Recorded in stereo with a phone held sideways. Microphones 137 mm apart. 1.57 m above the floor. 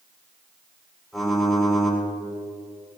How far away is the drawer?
No drawer in this recording.